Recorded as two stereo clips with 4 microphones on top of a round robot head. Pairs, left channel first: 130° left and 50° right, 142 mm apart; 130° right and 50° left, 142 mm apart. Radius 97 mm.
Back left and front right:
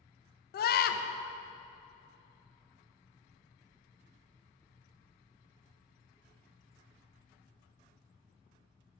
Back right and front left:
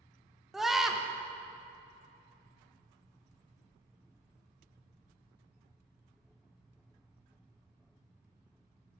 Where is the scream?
135° left, 0.8 m.